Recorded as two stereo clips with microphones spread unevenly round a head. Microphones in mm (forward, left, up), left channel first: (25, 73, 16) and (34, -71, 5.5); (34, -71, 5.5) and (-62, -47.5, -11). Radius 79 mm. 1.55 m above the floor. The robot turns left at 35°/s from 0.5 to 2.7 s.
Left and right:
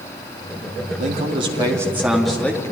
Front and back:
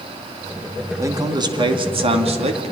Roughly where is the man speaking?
Behind right.